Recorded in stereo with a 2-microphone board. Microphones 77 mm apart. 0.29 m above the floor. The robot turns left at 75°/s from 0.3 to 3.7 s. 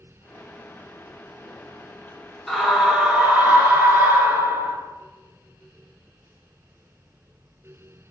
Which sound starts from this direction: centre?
A scream, at 2.5 s.